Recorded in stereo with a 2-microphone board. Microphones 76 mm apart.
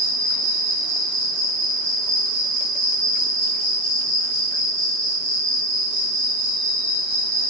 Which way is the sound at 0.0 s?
85° left.